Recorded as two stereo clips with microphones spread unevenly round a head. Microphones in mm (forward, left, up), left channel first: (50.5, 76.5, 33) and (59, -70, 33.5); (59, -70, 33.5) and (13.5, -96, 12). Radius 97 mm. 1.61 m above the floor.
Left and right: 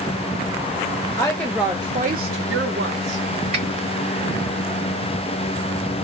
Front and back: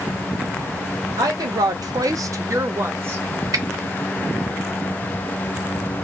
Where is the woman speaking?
165° left, 0.7 m; by 3.2 s 95° right, 1.0 m.